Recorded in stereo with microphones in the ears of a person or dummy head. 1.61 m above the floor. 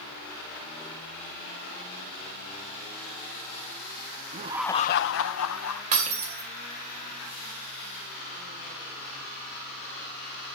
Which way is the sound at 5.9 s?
40° right (ahead or behind).